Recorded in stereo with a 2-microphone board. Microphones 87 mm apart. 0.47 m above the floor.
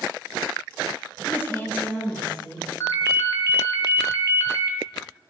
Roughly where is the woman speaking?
Left.